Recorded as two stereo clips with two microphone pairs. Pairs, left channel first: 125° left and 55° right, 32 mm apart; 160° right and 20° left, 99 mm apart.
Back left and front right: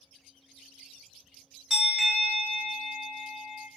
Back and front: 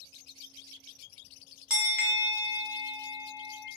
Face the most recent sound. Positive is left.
turn(degrees=-60)